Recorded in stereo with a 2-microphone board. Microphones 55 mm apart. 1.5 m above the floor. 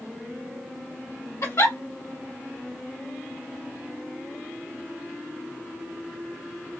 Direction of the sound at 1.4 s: 60° left (ahead or behind).